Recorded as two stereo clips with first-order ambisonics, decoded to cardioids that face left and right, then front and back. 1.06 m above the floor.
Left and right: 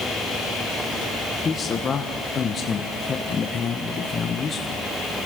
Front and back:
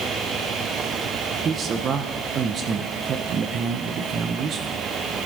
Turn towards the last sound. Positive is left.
turn(degrees=140)